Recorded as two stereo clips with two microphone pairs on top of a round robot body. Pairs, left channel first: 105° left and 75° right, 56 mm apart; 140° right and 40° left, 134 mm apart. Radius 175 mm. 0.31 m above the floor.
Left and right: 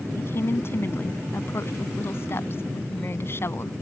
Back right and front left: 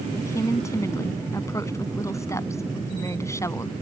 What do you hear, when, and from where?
0.2 s a woman speaking: 150° left